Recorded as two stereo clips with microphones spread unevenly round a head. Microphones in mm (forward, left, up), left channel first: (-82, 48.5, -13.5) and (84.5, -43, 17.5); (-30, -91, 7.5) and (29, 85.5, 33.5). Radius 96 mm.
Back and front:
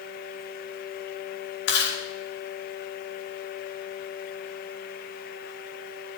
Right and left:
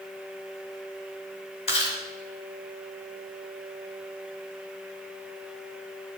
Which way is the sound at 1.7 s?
170° right.